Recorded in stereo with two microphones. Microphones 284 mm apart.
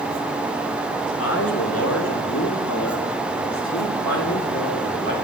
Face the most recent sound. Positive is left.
turn(degrees=45)  # may be behind; listen again after turning